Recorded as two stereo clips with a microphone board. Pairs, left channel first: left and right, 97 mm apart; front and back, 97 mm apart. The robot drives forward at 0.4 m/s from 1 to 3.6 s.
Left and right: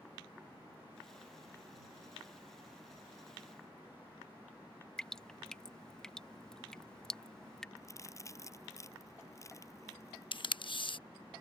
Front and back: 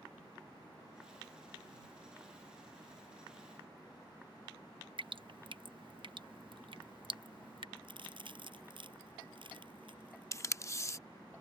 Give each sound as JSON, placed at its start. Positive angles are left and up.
{"t": 5.0, "sound": "dripping", "azimuth_deg": 175}
{"t": 7.8, "sound": "a crack", "azimuth_deg": 150}
{"t": 10.3, "sound": "tape being pulled", "azimuth_deg": 60}